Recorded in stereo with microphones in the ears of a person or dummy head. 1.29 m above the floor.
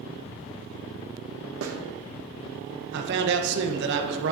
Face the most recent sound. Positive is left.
turn(degrees=-70)  # may be behind; listen again after turning